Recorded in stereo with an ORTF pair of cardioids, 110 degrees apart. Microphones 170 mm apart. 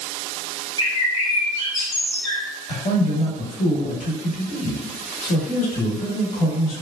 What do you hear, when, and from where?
0.8 s a bird: 35° left, 0.9 m
2.7 s a man speaking: 45° left, 1.1 m